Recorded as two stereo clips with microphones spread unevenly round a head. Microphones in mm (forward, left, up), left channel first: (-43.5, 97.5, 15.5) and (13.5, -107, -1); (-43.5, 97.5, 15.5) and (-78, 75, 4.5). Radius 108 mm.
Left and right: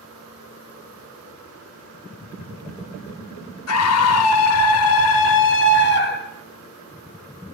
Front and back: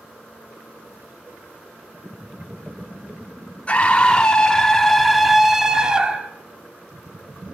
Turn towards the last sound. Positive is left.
turn(degrees=150)